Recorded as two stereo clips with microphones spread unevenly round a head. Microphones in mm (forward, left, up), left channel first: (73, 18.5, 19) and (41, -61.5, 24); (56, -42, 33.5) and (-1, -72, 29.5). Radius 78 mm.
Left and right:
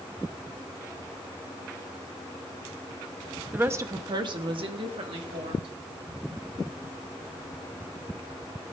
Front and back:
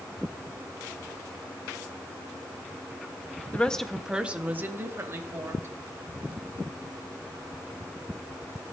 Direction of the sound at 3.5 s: 40° right.